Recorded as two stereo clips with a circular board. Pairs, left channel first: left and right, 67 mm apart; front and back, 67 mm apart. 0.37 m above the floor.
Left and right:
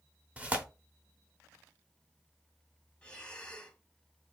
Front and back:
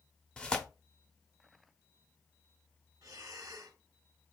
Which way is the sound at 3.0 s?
165° left.